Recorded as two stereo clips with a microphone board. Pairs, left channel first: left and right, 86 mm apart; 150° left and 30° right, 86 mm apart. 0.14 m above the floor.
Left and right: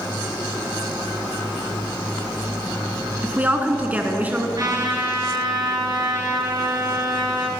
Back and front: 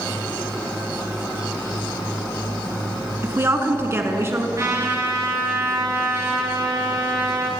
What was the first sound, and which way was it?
A woman speaking, 40° right.